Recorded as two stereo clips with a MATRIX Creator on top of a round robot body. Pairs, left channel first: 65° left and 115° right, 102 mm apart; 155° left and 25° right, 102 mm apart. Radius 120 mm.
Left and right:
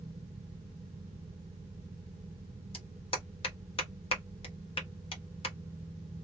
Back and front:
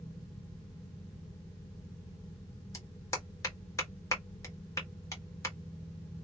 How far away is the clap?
About 1.5 m.